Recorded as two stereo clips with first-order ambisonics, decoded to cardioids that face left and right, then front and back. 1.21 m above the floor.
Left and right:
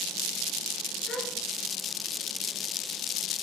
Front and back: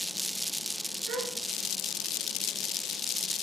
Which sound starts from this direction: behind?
A gasp, at 1.1 s.